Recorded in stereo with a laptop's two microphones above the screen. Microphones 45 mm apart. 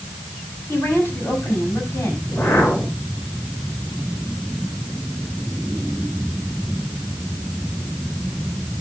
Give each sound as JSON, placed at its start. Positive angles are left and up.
{"t": 0.7, "sound": "a woman speaking", "side_deg": 85, "distance_m": 5.5}
{"t": 2.2, "sound": "a whoosh", "side_deg": 80, "distance_m": 3.0}